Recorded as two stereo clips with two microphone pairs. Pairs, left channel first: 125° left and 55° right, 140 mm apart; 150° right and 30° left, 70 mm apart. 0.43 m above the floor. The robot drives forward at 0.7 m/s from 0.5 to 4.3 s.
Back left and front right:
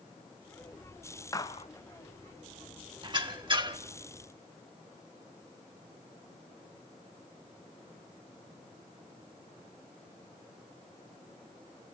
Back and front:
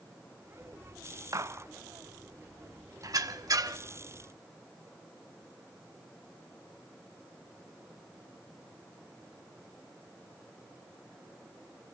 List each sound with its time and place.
1.3 s a gunshot: 60° left, 0.6 m; by 1.7 s 85° left, 0.6 m
3.0 s a squeak: straight ahead, 1.1 m